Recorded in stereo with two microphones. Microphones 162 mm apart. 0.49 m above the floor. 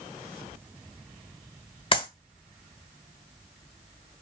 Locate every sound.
1.9 s a clap: 35° left (ahead or behind), 1.6 m